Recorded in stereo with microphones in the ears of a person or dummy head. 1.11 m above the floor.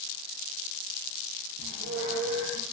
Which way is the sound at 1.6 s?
85° right.